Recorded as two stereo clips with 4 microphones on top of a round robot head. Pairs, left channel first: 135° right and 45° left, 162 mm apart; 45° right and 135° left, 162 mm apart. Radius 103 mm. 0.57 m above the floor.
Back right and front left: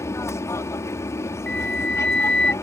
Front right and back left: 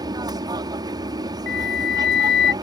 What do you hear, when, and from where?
0.0 s an aircraft: 170° left
1.5 s a flute: 50° right